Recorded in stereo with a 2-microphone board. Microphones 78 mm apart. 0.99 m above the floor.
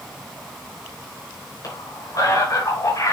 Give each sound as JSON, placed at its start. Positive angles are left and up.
{"t": 1.6, "sound": "a man speaking", "side_deg": 50, "distance_m": 5.5}